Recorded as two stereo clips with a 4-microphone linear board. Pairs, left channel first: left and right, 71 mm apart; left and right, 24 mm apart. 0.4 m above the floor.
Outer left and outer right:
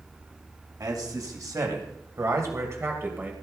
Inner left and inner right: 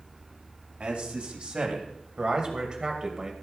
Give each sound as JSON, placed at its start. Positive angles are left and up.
{"t": 0.8, "sound": "a man speaking", "side_deg": -65, "distance_m": 3.0}